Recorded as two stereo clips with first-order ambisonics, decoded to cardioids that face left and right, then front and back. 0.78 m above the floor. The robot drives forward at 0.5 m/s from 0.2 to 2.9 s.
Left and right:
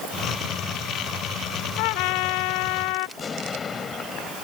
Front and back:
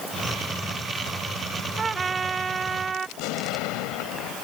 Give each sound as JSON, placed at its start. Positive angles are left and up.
{"t": 1.8, "sound": "a trumpet", "azimuth_deg": 110}
{"t": 3.2, "sound": "an explosion", "azimuth_deg": 20}